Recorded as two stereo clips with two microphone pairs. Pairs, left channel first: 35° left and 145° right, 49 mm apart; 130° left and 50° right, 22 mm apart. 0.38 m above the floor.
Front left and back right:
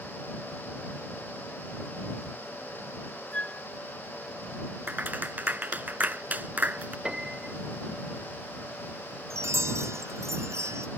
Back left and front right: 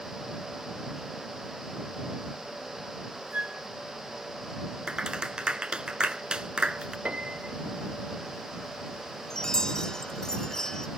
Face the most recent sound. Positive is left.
turn(degrees=-165)